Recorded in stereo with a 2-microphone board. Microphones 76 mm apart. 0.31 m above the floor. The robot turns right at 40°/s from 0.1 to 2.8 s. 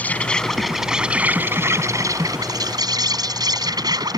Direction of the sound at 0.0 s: 155° left.